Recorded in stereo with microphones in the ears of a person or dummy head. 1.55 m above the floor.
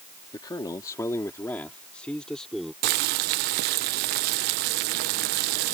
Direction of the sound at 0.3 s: 20° left (ahead or behind).